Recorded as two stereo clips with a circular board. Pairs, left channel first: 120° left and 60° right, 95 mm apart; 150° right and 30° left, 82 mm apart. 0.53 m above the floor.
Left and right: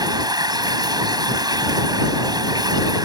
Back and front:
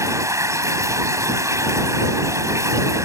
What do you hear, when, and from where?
0.0 s running water: 20° right